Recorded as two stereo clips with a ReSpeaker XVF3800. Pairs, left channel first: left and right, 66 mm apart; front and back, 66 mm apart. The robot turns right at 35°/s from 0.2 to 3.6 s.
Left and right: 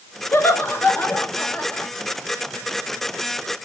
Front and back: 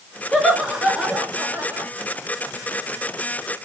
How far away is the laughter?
About 1.3 m.